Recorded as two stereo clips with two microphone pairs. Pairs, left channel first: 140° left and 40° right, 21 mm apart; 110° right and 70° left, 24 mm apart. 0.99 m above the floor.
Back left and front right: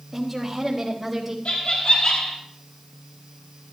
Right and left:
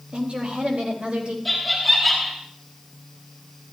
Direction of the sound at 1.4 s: 165° left.